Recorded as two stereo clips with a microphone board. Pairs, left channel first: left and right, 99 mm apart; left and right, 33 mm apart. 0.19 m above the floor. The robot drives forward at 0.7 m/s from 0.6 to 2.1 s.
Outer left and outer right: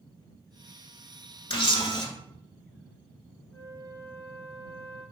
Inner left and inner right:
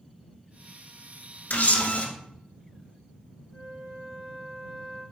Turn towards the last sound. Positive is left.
turn(degrees=15)  # may be behind; listen again after turning